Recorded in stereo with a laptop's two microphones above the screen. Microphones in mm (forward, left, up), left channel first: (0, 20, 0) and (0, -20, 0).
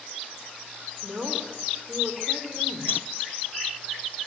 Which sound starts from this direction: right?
A woman speaking, at 1.0 s.